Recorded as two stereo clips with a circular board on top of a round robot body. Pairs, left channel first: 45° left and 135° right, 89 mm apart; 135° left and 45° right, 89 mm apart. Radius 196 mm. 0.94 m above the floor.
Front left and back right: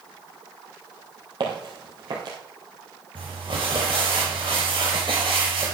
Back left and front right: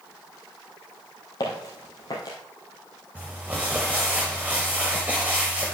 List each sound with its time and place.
1.4 s footsteps: 175° right, 1.9 m
3.1 s crumpling: 110° right, 0.7 m